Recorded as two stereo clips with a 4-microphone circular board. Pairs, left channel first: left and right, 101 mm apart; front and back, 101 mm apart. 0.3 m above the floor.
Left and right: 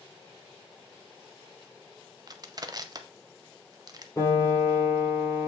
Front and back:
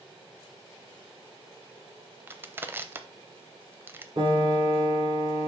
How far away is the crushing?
About 0.6 m.